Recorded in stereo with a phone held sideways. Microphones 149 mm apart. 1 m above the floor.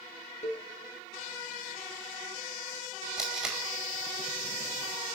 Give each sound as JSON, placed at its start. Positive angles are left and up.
{"t": 0.4, "sound": "a cowbell", "side_deg": 50, "distance_m": 3.5}
{"t": 3.2, "sound": "tape being pulled", "side_deg": -5, "distance_m": 5.0}